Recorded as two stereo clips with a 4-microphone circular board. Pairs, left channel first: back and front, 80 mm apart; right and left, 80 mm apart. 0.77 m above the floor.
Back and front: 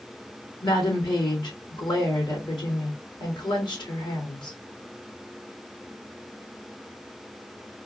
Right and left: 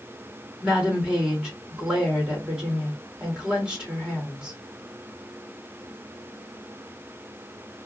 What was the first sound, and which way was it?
A woman speaking, 170° left.